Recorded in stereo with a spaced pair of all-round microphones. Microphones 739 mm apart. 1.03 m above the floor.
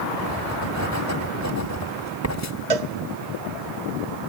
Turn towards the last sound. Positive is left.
turn(degrees=-55)  # may be behind; listen again after turning